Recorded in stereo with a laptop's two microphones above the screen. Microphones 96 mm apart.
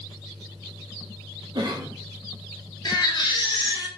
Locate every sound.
1.6 s a cough: 50° right (ahead or behind), 0.6 m
2.9 s a baby crying: 50° left (ahead or behind), 0.9 m